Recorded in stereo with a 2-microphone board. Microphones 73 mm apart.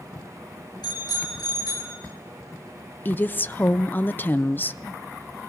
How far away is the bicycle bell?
About 6.5 m.